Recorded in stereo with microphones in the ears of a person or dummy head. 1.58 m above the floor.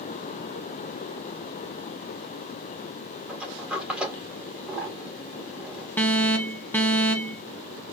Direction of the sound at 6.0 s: 5° left (ahead or behind).